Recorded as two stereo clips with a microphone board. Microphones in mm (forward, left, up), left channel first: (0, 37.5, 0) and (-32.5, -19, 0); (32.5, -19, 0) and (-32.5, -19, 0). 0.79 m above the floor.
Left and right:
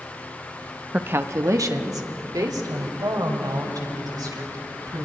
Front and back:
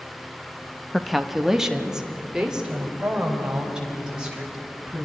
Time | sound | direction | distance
0.9 | a woman speaking | 85° right | 0.8 m